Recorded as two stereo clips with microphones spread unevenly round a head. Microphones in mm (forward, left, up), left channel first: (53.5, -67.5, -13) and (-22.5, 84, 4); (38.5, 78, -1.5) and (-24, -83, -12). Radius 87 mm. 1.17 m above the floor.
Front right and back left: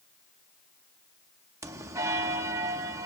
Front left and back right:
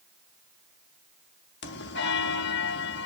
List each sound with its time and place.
1.6 s a bell: 45° left, 1.6 m